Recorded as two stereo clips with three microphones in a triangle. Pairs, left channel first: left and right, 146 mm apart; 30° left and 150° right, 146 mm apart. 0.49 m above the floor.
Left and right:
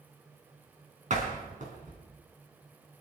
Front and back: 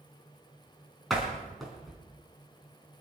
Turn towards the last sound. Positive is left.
turn(degrees=-60)